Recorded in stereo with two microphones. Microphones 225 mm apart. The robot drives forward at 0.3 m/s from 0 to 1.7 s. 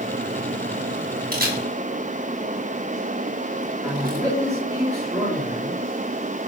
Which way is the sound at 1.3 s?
40° right (ahead or behind).